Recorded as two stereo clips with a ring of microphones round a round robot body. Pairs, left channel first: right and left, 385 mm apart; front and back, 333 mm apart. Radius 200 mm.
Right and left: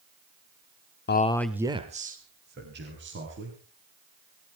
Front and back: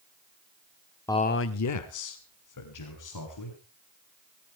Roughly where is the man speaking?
Right.